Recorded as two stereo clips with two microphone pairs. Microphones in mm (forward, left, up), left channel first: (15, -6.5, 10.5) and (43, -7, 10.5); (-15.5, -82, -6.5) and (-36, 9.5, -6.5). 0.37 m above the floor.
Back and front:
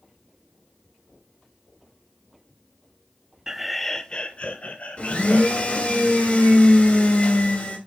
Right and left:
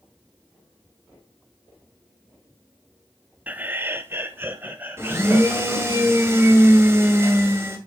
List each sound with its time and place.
3.5 s laughter: 40° left, 0.9 m; by 6.0 s 175° left, 3 m
5.0 s a blender: 160° left, 2.5 m